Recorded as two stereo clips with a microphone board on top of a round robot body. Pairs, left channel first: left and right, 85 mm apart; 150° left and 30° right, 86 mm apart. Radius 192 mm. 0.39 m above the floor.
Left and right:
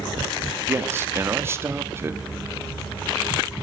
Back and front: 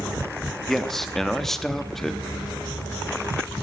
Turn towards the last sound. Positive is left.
turn(degrees=-125)